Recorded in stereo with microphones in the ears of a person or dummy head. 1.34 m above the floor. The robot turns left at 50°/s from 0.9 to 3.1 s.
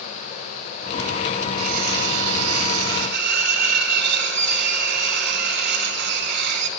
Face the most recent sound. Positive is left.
turn(degrees=-120)